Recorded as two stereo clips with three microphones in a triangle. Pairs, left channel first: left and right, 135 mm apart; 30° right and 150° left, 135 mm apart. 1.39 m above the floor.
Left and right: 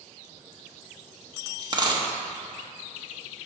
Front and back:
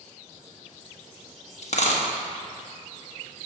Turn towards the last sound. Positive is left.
turn(degrees=-40)